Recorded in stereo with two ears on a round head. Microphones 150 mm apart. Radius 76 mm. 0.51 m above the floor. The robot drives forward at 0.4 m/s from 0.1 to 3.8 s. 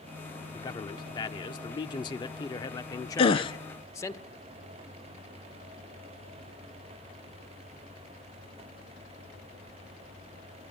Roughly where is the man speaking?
Left.